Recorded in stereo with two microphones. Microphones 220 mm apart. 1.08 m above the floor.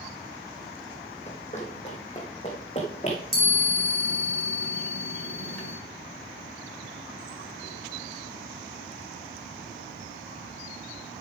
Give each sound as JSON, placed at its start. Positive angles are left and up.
{"t": 1.3, "sound": "running footsteps", "side_deg": 30, "distance_m": 2.0}
{"t": 3.3, "sound": "a chime", "side_deg": -75, "distance_m": 3.5}